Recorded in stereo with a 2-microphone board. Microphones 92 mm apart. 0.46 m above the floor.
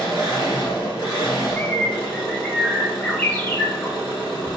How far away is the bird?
About 0.7 m.